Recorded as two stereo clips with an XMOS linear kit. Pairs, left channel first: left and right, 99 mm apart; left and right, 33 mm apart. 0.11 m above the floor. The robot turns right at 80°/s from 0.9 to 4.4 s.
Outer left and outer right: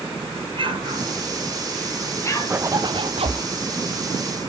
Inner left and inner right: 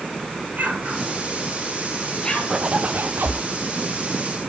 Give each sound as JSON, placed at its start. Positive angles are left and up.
{"t": 0.5, "sound": "an explosion", "side_deg": -60, "distance_m": 2.0}
{"t": 2.5, "sound": "a zipper", "azimuth_deg": -160, "distance_m": 2.0}